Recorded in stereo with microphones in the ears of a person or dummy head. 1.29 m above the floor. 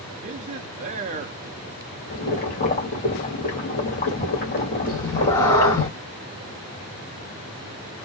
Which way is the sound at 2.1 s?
40° left (ahead or behind).